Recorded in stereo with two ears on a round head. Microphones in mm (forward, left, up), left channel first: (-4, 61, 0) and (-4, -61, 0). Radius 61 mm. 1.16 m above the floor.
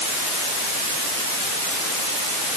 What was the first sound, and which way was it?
Only background noise.